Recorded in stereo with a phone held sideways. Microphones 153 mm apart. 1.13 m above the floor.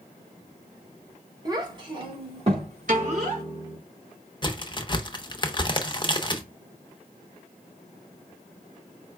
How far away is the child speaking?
About 1.8 m.